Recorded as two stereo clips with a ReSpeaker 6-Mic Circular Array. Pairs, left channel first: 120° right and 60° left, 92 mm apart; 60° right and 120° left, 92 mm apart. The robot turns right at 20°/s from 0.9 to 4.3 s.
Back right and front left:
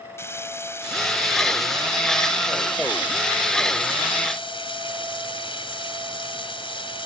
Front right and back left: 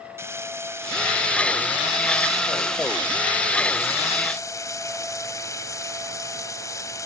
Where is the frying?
Straight behind; by 7.1 s 110° right.